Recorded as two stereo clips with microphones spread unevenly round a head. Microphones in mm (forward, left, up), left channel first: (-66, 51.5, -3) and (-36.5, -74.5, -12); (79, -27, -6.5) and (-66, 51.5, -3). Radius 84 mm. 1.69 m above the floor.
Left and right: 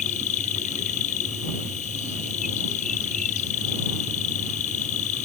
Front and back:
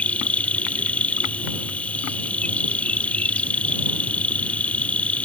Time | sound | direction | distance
0.0 | an insect | 55° left | ?